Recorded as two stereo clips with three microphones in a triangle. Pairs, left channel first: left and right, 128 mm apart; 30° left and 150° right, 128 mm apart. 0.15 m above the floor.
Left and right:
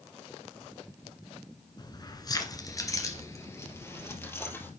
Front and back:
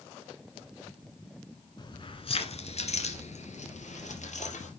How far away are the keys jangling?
About 1.3 m.